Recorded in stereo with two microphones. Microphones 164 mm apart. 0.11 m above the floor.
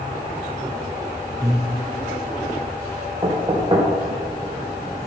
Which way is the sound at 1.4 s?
20° right (ahead or behind).